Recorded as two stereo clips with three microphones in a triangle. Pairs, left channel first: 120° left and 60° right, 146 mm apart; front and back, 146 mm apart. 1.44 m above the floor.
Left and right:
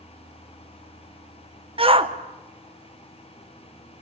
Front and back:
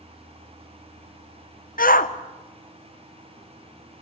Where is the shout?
10° right, 1.1 m.